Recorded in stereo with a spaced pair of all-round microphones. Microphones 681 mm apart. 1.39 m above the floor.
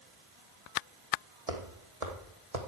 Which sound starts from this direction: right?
Footsteps, at 1.5 s.